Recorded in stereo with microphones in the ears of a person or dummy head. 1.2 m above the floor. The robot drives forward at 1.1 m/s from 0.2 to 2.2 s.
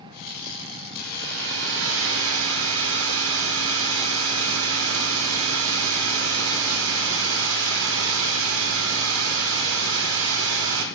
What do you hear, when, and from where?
1.0 s a hair dryer: 50° right (ahead or behind), 3 m; by 10.8 s 75° right (ahead or behind), 2.5 m